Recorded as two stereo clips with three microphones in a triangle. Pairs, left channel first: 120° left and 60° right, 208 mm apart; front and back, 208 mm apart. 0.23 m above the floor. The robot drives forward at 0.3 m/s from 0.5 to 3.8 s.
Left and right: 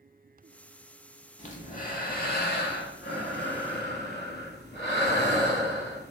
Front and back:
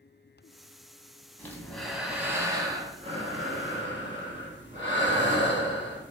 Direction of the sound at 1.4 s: 75° left.